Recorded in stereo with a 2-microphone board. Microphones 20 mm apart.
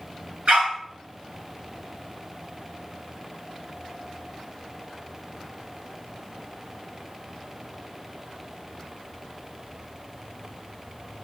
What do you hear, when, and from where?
0.5 s a dog barking: 70° right (ahead or behind), 5 m